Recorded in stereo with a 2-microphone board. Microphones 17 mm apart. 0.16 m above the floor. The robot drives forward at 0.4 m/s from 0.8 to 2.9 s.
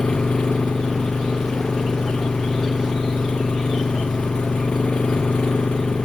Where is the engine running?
60° left (ahead or behind); by 6.0 s 65° left (ahead or behind).